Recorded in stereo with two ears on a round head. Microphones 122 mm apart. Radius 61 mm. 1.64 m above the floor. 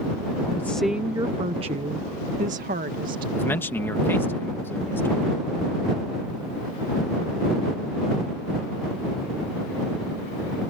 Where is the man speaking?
15° left (ahead or behind).